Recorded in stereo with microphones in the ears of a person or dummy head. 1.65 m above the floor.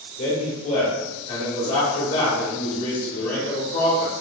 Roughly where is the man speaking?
Left.